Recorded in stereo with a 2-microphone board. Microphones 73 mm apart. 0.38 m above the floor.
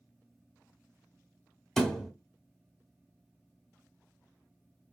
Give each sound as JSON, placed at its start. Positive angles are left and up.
{"t": 1.8, "sound": "a thud", "side_deg": 5, "distance_m": 1.2}